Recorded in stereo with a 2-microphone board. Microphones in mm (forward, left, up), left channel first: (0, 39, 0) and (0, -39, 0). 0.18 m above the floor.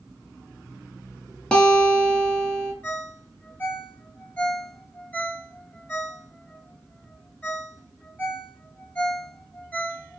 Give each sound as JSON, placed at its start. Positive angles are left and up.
{"t": 1.5, "sound": "a guitar", "side_deg": 10, "distance_m": 0.9}
{"t": 2.8, "sound": "a ringtone", "side_deg": 20, "distance_m": 0.7}